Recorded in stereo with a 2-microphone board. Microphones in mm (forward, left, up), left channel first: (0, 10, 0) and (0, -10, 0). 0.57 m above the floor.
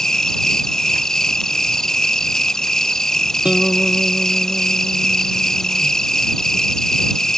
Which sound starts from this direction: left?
An insect, at 0.0 s.